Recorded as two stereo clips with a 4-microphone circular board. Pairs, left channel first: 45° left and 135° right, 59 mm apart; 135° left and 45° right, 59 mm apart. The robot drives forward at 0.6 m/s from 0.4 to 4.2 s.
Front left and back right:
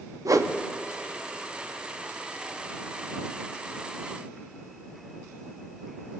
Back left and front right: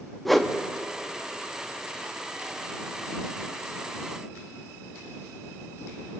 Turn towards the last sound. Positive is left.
turn(degrees=-170)